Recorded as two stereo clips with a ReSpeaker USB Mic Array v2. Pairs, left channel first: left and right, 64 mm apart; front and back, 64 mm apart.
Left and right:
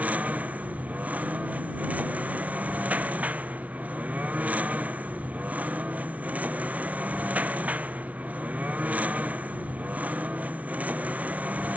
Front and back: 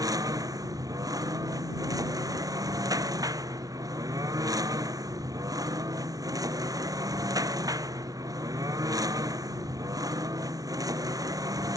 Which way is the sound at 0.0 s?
160° right.